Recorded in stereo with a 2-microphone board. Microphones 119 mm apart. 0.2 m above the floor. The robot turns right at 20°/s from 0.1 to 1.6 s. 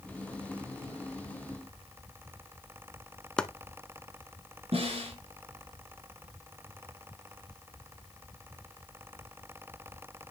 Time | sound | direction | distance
3.4 | chopping | 5° left (ahead or behind) | 0.5 m
4.7 | a snare drum | 60° right (ahead or behind) | 3.5 m